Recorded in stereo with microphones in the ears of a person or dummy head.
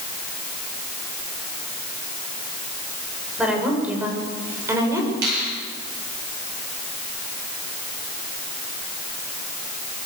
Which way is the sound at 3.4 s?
5° right (ahead or behind).